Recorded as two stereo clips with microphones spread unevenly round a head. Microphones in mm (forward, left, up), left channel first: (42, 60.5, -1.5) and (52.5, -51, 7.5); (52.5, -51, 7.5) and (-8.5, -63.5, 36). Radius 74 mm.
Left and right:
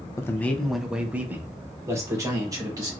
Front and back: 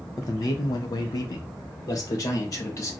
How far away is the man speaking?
About 0.6 m.